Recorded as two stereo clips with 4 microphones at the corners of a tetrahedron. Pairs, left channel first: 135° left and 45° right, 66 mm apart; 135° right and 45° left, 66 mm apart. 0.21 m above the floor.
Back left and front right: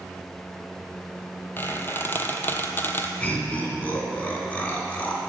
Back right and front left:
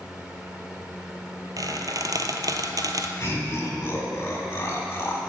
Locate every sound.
1.6 s a squeak: 75° left, 0.7 m
3.2 s laughter: 165° right, 1.8 m